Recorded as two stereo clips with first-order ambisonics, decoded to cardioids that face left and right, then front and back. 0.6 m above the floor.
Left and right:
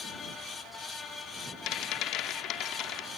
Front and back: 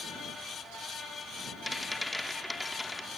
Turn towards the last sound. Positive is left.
turn(degrees=85)